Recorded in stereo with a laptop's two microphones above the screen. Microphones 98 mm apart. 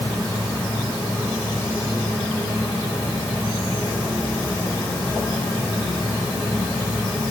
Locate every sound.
Only background noise.